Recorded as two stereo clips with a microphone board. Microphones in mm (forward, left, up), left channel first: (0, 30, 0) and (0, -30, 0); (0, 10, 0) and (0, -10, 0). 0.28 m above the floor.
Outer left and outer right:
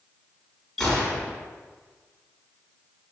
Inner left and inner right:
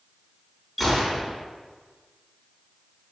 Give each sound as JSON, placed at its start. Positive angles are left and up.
{"t": 0.8, "sound": "a gunshot", "side_deg": 5, "distance_m": 3.0}